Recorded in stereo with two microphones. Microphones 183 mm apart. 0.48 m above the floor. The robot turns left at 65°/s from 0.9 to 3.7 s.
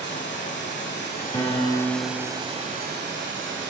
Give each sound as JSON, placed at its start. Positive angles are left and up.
{"t": 0.0, "sound": "running water", "azimuth_deg": 75, "distance_m": 1.2}
{"t": 1.3, "sound": "a piano", "azimuth_deg": 20, "distance_m": 1.0}